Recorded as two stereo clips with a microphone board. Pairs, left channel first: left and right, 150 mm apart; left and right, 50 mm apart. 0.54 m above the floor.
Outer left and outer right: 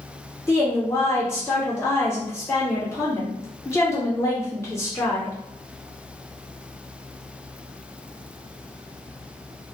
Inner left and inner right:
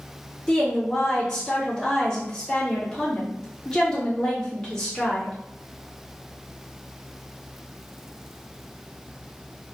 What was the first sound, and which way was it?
A woman speaking, 20° left (ahead or behind).